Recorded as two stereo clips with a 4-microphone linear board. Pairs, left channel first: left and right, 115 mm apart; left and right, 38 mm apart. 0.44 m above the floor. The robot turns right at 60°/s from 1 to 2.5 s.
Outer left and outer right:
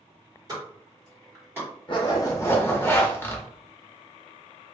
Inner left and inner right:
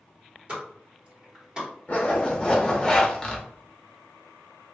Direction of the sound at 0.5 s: 35° right (ahead or behind).